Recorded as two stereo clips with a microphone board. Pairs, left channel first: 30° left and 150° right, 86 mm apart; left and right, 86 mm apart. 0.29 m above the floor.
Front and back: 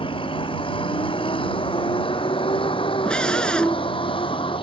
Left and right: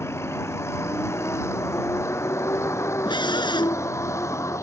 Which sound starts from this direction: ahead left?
A vehicle, at 0.0 s.